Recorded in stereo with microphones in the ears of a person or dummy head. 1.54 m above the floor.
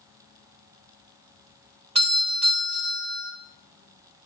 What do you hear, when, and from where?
1.9 s a doorbell: 30° right (ahead or behind), 0.9 m